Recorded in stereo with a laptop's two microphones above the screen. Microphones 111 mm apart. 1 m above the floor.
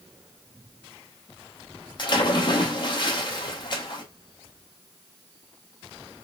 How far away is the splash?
About 0.9 m.